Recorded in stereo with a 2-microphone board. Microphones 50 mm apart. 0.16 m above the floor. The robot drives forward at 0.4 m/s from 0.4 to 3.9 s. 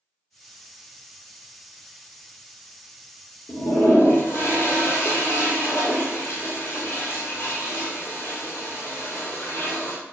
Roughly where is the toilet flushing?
Left.